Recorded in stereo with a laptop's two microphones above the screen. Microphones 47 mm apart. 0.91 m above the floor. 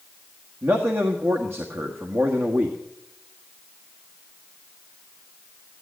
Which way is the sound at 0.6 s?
65° right (ahead or behind).